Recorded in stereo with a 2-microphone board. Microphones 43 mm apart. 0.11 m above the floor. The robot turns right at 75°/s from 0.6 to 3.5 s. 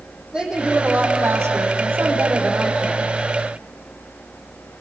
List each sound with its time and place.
0.3 s a woman speaking: 160° right, 5.5 m; by 3.1 s 25° left, 5.5 m